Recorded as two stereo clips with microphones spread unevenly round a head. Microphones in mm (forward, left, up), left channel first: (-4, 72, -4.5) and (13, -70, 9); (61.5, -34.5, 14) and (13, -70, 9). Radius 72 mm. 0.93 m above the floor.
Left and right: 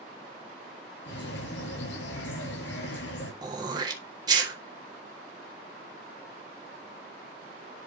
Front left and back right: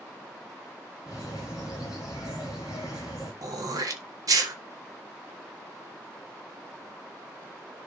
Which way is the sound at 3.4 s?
150° right.